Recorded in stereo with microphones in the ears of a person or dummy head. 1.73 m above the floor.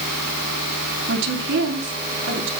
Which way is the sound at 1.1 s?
70° right (ahead or behind).